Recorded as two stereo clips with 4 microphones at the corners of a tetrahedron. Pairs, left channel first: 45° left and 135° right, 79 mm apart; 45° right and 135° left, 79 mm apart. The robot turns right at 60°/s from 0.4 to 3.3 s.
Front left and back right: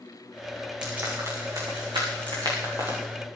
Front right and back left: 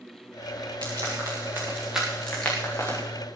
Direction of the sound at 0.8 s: 145° left.